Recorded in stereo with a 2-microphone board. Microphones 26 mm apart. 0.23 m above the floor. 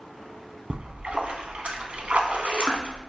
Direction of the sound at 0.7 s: 65° right (ahead or behind).